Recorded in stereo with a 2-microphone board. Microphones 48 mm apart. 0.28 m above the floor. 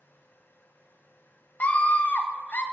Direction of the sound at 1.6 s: 35° left (ahead or behind).